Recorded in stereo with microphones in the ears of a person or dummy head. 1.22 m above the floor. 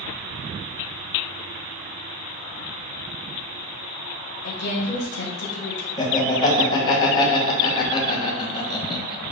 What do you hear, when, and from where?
4.4 s a woman speaking: 55° left (ahead or behind), 0.9 m
6.0 s laughter: 30° left (ahead or behind), 1.1 m